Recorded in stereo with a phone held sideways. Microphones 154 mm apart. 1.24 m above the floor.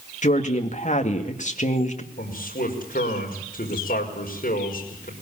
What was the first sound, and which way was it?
A woman speaking, 50° left (ahead or behind).